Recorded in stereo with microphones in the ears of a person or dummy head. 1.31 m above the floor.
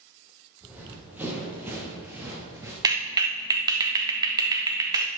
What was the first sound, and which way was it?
Running footsteps, 10° right (ahead or behind).